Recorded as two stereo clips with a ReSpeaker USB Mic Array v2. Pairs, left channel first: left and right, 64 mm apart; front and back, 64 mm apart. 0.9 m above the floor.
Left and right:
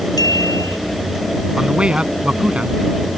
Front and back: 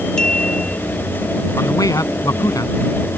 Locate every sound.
0.2 s a clink: 80° left
1.6 s a man speaking: 15° right